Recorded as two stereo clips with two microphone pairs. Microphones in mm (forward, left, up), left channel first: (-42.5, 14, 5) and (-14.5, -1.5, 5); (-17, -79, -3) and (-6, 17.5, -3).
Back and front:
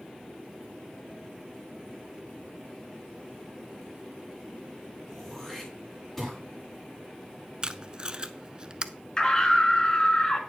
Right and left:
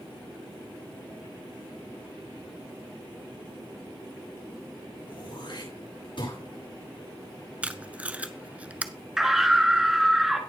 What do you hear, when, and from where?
5.1 s throat clearing: 125° right, 8.5 m
7.6 s tape being pulled: 15° left, 0.5 m
9.2 s a scream: 165° left, 1.7 m